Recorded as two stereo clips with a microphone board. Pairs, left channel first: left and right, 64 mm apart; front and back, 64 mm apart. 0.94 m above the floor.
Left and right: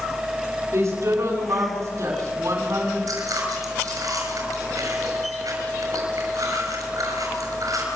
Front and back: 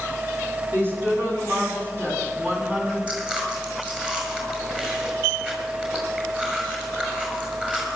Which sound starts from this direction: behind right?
A woman speaking, at 0.7 s.